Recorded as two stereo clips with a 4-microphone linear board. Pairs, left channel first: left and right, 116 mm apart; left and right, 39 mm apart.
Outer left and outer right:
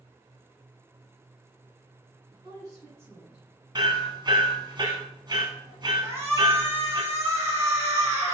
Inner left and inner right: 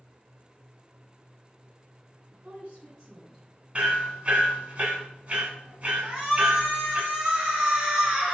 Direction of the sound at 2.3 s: 45° right (ahead or behind).